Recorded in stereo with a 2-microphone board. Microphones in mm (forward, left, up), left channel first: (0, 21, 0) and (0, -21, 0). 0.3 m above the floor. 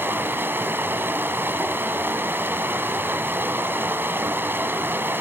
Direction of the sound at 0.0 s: 60° right (ahead or behind).